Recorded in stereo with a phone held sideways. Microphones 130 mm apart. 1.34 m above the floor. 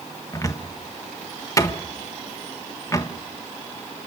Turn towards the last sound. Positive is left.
turn(degrees=25)  # may be behind; listen again after turning